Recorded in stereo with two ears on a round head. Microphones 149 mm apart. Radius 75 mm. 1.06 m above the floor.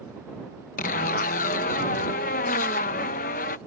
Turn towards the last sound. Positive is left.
turn(degrees=50)  # may be behind; listen again after turning